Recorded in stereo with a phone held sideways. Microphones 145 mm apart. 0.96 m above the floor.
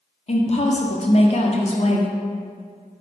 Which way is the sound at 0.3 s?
45° left (ahead or behind).